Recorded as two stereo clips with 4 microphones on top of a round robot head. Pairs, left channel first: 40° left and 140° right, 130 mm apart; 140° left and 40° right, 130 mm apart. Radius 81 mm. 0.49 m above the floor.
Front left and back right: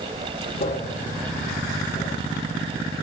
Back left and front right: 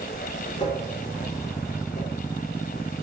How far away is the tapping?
About 7 m.